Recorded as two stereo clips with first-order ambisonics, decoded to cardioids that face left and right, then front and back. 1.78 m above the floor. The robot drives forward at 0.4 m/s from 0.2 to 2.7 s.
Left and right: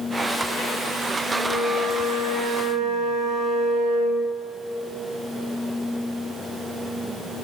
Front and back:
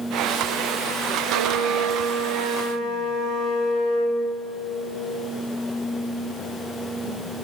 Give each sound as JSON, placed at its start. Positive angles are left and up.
{"t": 1.2, "sound": "a flute", "azimuth_deg": 160, "distance_m": 4.0}